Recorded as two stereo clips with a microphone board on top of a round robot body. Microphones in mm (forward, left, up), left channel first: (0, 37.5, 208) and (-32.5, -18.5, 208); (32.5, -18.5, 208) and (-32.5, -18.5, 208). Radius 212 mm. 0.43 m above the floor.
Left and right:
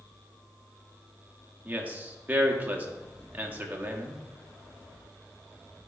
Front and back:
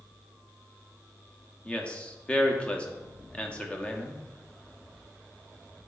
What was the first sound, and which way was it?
A man speaking, 65° right.